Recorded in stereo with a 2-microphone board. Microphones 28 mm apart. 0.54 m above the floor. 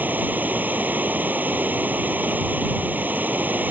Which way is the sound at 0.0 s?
85° right.